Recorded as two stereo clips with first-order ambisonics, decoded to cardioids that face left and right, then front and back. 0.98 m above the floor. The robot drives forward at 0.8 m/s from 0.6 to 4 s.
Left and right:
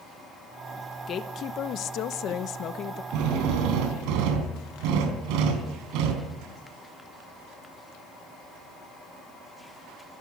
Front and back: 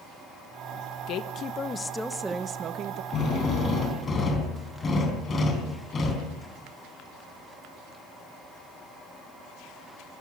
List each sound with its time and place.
1.1 s a woman speaking: 35° left, 1.2 m; by 3.0 s 145° left, 1.2 m
3.1 s a drill: 60° right, 4 m; by 6.3 s 70° right, 4 m